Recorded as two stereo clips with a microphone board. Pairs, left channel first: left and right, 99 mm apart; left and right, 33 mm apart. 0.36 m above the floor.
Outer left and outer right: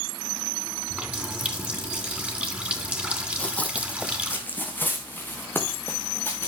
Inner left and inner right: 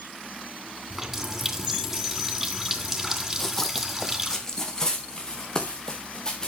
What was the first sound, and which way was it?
A running tap, 15° right (ahead or behind).